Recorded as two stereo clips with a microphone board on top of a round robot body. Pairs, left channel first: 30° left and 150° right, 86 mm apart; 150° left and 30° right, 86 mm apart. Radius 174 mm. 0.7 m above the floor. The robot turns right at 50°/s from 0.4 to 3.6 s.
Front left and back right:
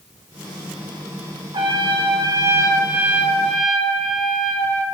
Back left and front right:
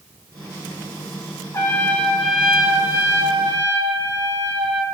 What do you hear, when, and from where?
1.5 s a trumpet: 160° right, 2.5 m; by 4.8 s 55° right, 2.5 m